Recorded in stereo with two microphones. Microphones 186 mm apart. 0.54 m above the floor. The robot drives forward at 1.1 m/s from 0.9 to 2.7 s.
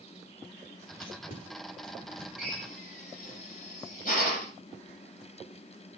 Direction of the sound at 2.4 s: 45° left (ahead or behind).